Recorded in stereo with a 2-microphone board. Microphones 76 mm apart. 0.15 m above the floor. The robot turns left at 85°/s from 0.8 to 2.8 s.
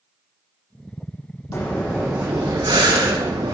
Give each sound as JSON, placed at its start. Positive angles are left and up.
{"t": 1.5, "sound": "breathing", "azimuth_deg": 45, "distance_m": 2.0}